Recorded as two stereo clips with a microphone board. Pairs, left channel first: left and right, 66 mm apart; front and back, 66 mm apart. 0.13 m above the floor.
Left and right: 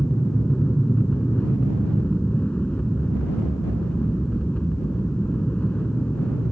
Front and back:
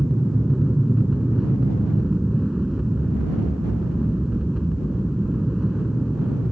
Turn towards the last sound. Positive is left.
turn(degrees=115)